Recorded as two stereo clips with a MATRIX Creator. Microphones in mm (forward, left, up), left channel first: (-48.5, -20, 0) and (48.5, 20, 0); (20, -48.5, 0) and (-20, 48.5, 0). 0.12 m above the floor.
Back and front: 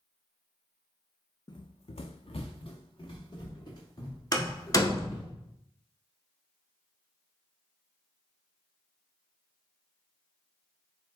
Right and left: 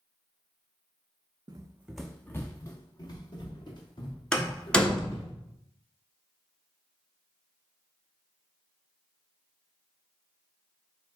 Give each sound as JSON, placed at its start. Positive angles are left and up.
{"t": 1.5, "sound": "running footsteps", "azimuth_deg": 160, "distance_m": 0.5}
{"t": 4.3, "sound": "a door slam", "azimuth_deg": -145, "distance_m": 0.9}